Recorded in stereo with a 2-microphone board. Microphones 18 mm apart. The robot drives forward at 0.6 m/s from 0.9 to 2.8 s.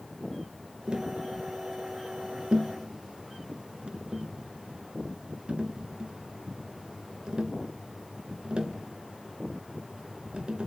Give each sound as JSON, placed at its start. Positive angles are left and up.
{"t": 0.9, "sound": "tapping", "side_deg": -55, "distance_m": 2.5}